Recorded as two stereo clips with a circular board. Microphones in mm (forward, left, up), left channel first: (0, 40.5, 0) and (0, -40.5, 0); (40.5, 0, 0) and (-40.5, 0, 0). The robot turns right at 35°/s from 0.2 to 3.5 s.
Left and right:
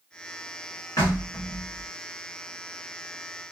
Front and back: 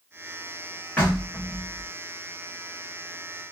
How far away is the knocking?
About 1.7 m.